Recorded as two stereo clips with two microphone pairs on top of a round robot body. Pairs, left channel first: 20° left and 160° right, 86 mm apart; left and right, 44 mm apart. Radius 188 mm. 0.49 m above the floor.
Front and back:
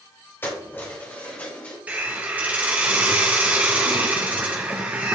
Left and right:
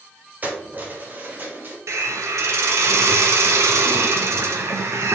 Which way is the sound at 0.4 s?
45° right.